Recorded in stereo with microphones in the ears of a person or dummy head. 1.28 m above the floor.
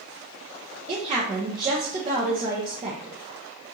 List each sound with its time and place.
0.9 s a woman speaking: 30° right (ahead or behind), 0.8 m